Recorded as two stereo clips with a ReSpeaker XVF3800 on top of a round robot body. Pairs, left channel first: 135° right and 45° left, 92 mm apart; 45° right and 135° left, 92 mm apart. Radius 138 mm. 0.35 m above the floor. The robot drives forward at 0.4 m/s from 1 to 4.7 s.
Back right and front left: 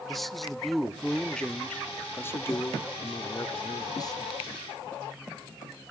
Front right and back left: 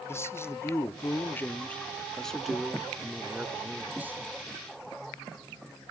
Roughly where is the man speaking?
Ahead right.